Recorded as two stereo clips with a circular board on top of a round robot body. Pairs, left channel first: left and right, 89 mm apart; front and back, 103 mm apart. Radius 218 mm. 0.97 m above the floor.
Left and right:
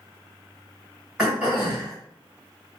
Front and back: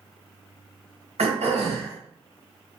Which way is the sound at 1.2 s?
175° right.